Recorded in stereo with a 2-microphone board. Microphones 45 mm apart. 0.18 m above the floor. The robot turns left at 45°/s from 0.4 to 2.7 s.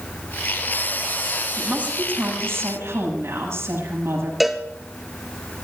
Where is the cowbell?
5° right (ahead or behind), 1.1 m.